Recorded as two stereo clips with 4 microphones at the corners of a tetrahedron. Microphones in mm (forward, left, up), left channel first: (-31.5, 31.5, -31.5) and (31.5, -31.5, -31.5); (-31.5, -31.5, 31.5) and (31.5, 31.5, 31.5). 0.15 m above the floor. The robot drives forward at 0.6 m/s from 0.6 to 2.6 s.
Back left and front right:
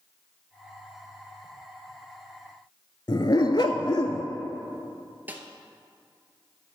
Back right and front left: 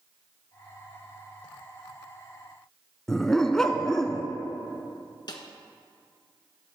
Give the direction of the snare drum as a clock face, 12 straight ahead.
4 o'clock.